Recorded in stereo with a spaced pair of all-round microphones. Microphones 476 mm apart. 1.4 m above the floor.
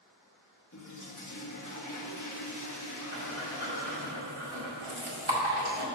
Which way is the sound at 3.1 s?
70° right (ahead or behind).